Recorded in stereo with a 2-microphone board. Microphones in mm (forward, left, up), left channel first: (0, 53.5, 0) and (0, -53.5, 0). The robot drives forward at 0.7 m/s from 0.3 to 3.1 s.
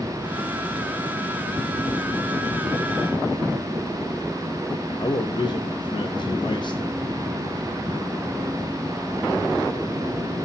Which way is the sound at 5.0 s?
45° left (ahead or behind).